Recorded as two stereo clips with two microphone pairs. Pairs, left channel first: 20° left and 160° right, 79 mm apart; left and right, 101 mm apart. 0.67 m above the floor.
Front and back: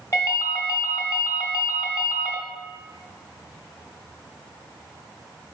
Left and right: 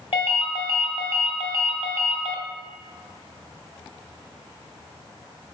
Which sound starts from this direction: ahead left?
A ringtone, at 0.1 s.